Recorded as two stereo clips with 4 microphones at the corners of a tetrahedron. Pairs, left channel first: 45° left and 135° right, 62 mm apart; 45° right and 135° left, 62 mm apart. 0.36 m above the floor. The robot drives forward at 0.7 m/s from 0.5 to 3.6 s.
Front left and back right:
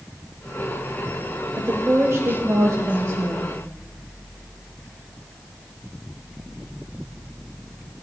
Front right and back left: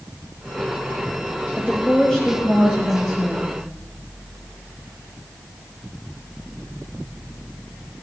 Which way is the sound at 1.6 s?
100° right.